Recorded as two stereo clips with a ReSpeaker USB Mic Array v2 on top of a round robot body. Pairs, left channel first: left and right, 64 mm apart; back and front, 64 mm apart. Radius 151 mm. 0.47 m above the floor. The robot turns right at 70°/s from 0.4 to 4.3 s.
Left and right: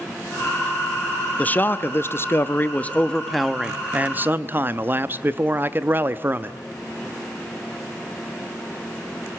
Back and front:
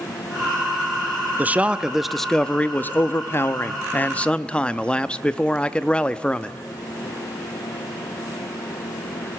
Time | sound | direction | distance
1.4 | a man speaking | 40° left | 0.8 m